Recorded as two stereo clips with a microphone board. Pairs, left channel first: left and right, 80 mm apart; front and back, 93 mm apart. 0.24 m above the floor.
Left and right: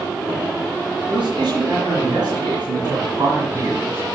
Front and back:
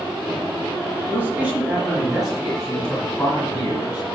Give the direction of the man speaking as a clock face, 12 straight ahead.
3 o'clock.